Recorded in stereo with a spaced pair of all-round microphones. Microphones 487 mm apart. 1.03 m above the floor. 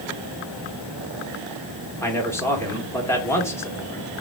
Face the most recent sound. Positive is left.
turn(degrees=5)  # may be behind; listen again after turning